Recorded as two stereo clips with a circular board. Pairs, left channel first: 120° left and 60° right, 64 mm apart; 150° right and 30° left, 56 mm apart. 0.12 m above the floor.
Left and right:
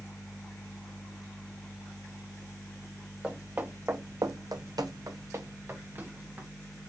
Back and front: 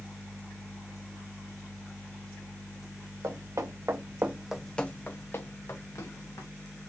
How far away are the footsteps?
About 1.1 m.